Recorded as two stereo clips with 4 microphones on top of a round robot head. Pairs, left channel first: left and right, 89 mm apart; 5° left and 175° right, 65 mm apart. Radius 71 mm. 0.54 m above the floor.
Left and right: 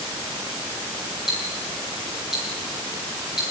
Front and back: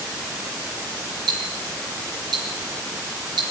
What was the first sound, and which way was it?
Ticking, 175° right.